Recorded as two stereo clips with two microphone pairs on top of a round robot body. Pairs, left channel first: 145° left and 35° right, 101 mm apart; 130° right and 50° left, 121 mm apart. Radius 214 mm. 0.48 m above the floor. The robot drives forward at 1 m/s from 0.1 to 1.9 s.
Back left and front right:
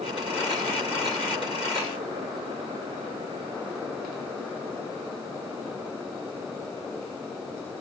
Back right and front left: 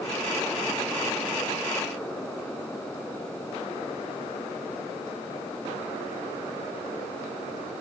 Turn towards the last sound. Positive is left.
No sound to turn to.